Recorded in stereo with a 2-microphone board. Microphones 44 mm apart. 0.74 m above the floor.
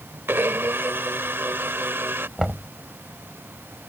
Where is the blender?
65° right (ahead or behind).